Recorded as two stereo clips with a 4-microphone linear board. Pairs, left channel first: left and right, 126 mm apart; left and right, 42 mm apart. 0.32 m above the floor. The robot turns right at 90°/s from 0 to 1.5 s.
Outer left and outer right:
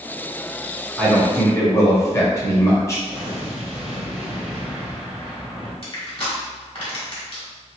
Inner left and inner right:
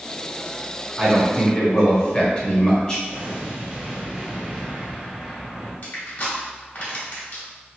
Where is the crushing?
50° left (ahead or behind), 1.5 m.